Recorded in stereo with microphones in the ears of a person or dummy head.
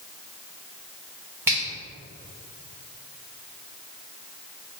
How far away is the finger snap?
About 1.3 m.